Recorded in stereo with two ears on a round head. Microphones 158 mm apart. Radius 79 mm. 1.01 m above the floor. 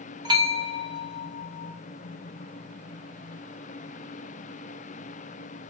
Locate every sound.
0.2 s a bell: 25° right (ahead or behind), 0.7 m